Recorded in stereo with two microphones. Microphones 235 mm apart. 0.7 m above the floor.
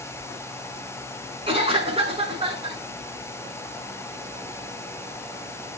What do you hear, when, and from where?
1.5 s a cough: 25° right (ahead or behind), 6 m